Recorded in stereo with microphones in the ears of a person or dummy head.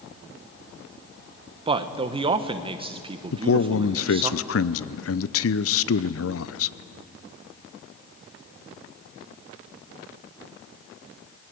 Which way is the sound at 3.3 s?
65° left (ahead or behind).